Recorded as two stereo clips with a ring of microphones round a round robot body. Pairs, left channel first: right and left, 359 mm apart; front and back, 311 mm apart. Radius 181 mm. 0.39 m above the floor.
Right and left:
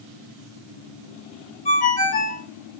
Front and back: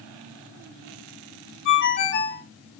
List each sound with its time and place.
1.6 s a ringtone: 35° right, 0.9 m